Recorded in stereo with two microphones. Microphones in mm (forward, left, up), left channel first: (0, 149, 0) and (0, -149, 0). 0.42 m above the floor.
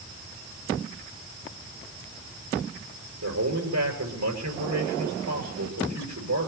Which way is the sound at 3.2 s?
85° right.